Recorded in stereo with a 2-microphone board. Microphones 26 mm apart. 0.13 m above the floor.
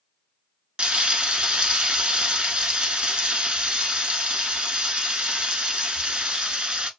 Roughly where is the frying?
Right.